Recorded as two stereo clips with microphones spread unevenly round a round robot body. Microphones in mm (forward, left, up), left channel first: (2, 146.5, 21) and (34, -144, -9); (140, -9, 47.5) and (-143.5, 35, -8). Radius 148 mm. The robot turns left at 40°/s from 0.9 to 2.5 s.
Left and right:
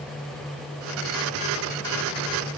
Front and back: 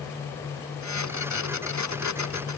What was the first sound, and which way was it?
Only background noise.